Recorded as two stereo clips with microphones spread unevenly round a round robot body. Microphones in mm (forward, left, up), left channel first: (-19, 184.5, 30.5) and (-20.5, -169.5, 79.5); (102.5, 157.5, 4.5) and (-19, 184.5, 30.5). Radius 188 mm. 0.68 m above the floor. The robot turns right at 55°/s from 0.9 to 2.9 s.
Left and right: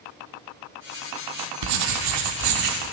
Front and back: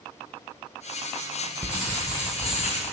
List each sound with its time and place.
1.6 s writing: 110° right, 1.6 m; by 2.9 s 40° right, 1.6 m